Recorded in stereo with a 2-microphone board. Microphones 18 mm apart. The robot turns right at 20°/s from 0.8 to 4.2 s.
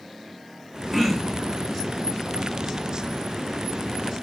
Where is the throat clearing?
10° right (ahead or behind), 3 m; by 1.5 s centre (ahead or behind), 3 m.